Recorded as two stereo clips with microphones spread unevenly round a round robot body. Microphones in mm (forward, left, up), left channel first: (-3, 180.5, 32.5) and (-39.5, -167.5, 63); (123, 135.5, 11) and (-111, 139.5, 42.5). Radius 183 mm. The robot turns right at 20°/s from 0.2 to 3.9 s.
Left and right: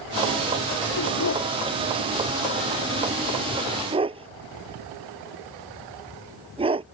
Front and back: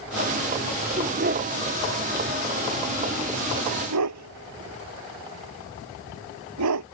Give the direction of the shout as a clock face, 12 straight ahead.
I don't hear a shout.